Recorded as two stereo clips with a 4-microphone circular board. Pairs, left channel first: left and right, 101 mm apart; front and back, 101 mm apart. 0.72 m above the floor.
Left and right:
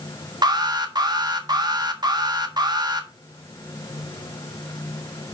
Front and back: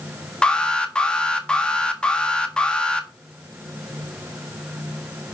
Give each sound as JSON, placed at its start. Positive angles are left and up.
{"t": 0.4, "sound": "an alarm", "azimuth_deg": -75, "distance_m": 1.5}